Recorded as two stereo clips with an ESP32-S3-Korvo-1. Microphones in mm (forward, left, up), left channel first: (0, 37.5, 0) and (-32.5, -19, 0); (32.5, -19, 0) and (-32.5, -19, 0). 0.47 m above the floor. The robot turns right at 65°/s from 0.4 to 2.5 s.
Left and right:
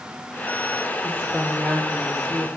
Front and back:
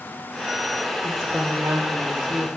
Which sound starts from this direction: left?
A woman speaking, at 1.0 s.